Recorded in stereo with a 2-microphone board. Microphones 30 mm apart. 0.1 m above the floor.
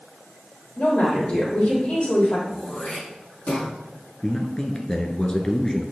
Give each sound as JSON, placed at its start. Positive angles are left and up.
{"t": 0.8, "sound": "a woman speaking", "side_deg": 50, "distance_m": 3.5}
{"t": 2.5, "sound": "throat clearing", "side_deg": 60, "distance_m": 4.0}
{"t": 4.2, "sound": "a man speaking", "side_deg": 25, "distance_m": 1.2}